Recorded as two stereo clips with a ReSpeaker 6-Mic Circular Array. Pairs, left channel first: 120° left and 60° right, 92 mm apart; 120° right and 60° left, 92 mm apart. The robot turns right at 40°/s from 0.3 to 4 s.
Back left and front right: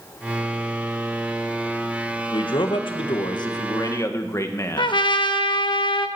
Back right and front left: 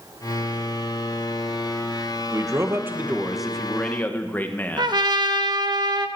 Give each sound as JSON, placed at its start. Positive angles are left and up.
{"t": 2.3, "sound": "a man speaking", "azimuth_deg": 105, "distance_m": 1.7}
{"t": 4.8, "sound": "a trumpet", "azimuth_deg": 95, "distance_m": 1.1}